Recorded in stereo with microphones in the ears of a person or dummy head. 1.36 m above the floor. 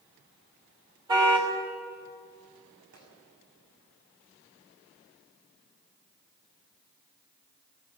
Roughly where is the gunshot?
Right.